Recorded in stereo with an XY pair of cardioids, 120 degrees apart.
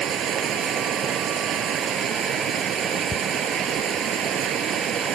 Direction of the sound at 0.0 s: 55° right.